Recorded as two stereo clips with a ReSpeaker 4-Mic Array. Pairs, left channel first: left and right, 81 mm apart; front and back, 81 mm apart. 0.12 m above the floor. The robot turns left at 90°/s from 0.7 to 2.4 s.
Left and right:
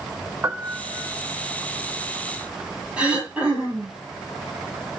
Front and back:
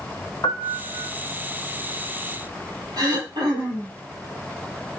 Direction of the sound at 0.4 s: 30° right.